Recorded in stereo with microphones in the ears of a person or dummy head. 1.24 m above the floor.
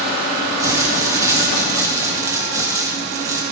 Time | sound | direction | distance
0.6 | crumpling | 15° right (ahead or behind) | 0.9 m